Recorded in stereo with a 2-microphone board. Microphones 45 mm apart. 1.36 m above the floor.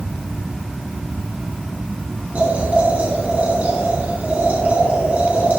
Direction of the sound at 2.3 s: 40° right (ahead or behind).